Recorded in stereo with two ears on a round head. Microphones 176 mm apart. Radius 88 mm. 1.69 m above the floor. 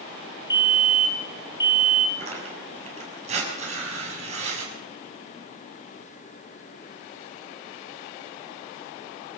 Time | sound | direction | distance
0.5 | a fire alarm | 20° left (ahead or behind) | 3.5 m
2.2 | tearing paper | 35° right (ahead or behind) | 6.5 m